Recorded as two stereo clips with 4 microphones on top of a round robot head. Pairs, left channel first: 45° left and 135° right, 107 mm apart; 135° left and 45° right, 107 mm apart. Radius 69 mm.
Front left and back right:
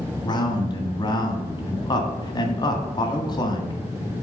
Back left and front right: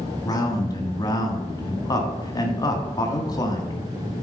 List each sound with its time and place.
0.2 s a man speaking: 85° left, 1.8 m